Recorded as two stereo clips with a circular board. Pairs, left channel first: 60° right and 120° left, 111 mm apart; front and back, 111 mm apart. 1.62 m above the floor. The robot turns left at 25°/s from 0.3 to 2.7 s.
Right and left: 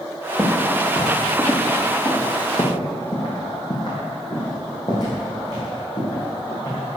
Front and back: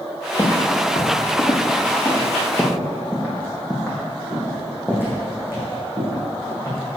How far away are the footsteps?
About 2.5 m.